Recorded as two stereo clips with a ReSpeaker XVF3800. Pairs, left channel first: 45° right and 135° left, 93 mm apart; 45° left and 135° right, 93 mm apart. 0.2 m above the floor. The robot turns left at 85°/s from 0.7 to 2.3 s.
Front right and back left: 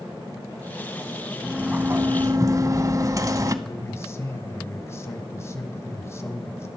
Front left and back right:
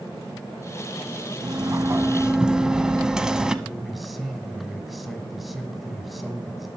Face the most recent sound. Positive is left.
turn(degrees=-45)